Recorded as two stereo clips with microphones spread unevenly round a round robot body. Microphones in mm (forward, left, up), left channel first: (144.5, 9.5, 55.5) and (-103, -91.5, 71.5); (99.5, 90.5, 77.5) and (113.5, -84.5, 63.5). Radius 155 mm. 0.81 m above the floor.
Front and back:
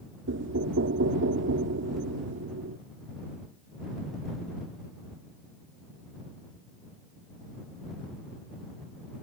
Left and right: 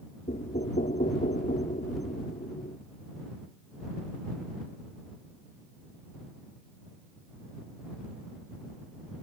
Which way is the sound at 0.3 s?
155° left.